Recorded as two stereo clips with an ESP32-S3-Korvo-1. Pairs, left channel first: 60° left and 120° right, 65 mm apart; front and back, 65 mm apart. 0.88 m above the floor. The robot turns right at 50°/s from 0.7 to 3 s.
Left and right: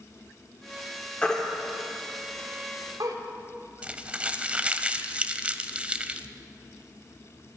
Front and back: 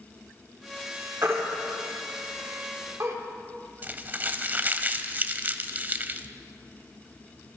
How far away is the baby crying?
About 2 m.